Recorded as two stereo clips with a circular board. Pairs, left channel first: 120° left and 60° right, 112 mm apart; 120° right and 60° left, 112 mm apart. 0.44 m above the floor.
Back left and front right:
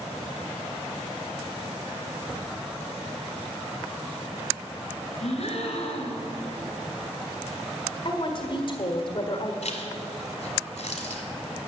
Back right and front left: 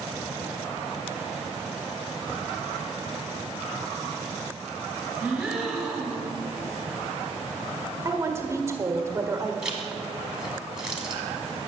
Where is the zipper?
145° left, 1.8 m.